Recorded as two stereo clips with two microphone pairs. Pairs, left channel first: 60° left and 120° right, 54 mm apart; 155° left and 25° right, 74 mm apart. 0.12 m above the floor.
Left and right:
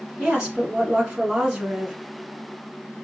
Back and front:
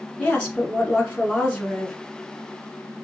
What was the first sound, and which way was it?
A woman speaking, 175° right.